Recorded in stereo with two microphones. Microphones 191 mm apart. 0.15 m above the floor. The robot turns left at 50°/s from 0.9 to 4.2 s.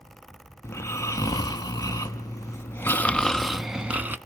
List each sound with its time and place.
0.6 s snoring: 15° left (ahead or behind), 0.7 m; by 4.2 s 10° right (ahead or behind), 0.7 m